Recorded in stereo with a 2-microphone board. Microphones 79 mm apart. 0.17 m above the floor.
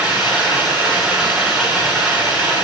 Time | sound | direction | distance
0.0 | running water | 15° right (ahead or behind) | 7.5 m